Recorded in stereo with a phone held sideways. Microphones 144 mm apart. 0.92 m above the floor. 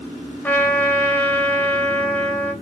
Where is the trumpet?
10° left (ahead or behind), 0.8 m.